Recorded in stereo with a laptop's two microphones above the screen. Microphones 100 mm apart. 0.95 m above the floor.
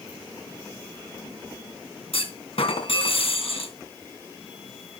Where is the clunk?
70° left (ahead or behind), 3 m.